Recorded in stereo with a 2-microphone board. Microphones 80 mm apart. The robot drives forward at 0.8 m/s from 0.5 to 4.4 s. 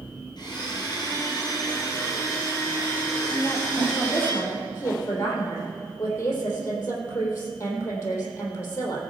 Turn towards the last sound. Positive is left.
turn(degrees=35)  # may be behind; listen again after turning